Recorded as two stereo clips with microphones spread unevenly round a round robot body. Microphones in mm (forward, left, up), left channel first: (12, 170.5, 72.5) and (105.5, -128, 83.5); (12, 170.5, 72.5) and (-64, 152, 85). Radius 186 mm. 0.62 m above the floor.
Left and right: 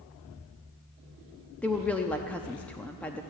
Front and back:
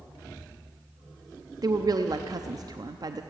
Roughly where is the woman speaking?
Behind.